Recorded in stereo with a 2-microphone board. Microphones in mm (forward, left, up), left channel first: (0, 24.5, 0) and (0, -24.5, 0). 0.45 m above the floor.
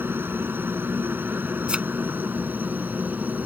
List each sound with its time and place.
0.0 s a helicopter: 50° right (ahead or behind); by 3.5 s 35° right (ahead or behind)
1.7 s a thud: 20° right (ahead or behind)